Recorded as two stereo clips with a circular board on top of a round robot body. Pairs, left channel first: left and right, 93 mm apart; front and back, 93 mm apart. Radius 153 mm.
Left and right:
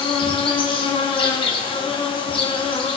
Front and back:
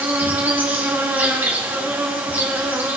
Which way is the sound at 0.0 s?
110° left.